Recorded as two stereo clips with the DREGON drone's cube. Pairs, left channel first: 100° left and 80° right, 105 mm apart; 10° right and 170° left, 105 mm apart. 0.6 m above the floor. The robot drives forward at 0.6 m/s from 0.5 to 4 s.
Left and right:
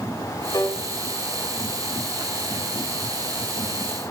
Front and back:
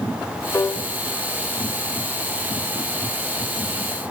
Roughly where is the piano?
Ahead left.